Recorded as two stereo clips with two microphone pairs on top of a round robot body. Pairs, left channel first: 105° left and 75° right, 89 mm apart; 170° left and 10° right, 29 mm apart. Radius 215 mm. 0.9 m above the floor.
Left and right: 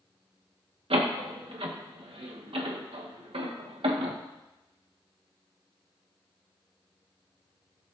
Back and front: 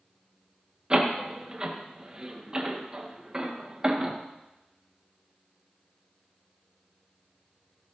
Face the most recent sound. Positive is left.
turn(degrees=-75)